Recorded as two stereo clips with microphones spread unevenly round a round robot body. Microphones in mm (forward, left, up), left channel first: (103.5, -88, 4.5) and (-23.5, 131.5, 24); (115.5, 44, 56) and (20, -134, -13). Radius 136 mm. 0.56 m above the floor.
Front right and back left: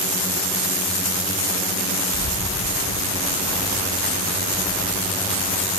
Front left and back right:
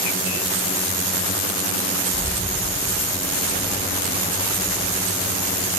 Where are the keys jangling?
145° left, 3 m.